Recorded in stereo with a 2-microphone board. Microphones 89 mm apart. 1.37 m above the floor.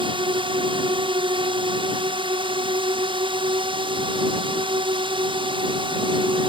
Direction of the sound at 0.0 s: 70° right (ahead or behind).